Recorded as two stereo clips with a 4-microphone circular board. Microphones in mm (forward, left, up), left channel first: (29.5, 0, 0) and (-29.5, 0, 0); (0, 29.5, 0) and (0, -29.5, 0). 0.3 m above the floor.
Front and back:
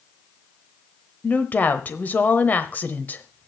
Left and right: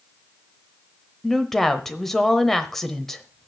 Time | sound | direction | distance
1.2 | a woman speaking | 10° left | 1.0 m